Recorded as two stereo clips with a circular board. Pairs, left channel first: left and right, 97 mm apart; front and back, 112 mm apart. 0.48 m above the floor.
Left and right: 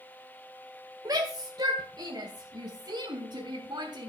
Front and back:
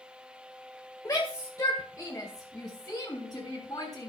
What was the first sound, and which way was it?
A shout, 55° right.